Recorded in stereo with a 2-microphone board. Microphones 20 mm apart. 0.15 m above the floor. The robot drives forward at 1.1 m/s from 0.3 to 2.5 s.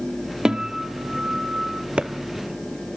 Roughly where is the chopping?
Right.